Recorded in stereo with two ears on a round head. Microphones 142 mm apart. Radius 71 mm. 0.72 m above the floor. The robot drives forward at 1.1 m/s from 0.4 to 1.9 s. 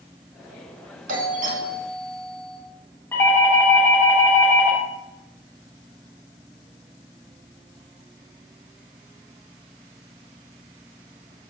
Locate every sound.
1.1 s a doorbell: 55° right (ahead or behind), 2 m; by 2.6 s 45° right (ahead or behind), 2.5 m
3.1 s a doorbell: 15° left (ahead or behind), 2.5 m